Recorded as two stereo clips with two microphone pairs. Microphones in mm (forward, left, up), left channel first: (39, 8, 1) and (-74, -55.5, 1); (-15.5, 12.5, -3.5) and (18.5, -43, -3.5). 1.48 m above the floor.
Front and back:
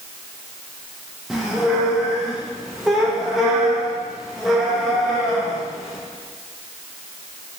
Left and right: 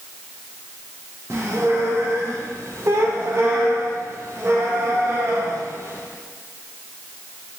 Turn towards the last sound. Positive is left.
turn(degrees=-70)